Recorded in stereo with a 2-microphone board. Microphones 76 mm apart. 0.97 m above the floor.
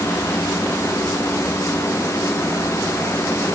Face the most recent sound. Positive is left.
No sound to turn to.